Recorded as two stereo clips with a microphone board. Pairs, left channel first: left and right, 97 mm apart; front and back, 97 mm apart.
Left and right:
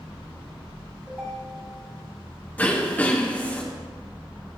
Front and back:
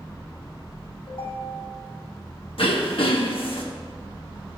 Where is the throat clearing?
15° left, 1.3 m.